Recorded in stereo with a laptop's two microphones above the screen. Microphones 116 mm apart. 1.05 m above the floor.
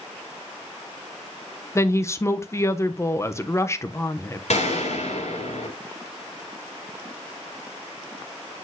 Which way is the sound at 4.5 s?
70° left (ahead or behind).